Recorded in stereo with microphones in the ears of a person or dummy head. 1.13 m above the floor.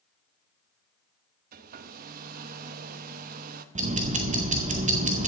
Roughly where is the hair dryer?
Right.